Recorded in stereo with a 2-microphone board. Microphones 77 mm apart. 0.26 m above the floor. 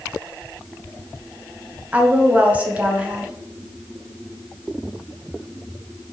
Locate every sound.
1.9 s a woman speaking: 15° right (ahead or behind), 1.3 m